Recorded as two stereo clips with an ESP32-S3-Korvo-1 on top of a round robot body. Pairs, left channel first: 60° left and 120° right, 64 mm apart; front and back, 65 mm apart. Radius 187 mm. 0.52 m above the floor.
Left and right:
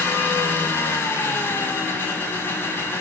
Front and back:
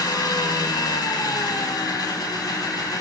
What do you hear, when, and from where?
0.0 s an engine running: straight ahead, 5.5 m